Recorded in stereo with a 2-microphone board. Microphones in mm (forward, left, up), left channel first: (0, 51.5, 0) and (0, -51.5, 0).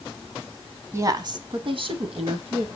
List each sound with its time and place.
0.9 s a woman speaking: 25° right (ahead or behind), 1.1 m; by 2.7 s 70° right (ahead or behind), 3 m